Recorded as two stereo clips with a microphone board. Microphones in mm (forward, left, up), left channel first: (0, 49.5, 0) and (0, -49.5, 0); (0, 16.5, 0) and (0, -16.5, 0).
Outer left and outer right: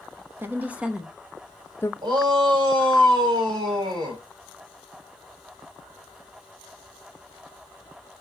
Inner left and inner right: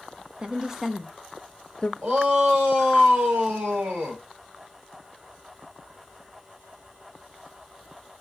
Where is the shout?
50° right (ahead or behind), 4.5 m.